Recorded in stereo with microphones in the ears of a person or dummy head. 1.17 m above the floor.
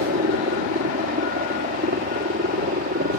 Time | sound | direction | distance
0.0 | a helicopter | 40° right (ahead or behind) | ?